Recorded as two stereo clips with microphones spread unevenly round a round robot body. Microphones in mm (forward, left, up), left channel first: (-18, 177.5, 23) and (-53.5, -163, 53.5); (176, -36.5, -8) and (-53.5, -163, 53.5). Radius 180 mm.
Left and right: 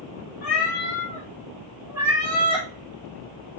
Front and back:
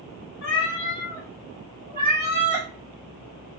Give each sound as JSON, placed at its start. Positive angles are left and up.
{"t": 0.4, "sound": "a cat meowing", "azimuth_deg": 40, "distance_m": 0.8}